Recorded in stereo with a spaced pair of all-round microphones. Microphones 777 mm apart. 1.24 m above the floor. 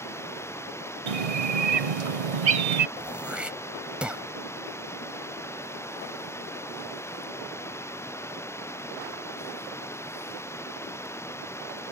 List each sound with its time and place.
0.0 s running water: 5° left (ahead or behind)
1.1 s a bird: 45° right (ahead or behind)
3.0 s throat clearing: centre (ahead or behind)